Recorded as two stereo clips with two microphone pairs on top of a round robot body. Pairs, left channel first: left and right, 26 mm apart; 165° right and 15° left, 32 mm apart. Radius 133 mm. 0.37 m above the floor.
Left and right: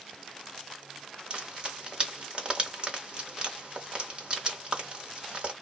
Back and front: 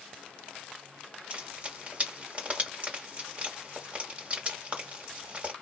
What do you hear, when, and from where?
1.3 s frying: 35° right, 1.4 m